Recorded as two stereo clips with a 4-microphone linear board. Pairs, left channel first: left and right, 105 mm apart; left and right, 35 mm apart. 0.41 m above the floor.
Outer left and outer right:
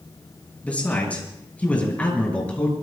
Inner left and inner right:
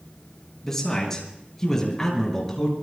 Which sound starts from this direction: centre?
A man speaking, at 0.6 s.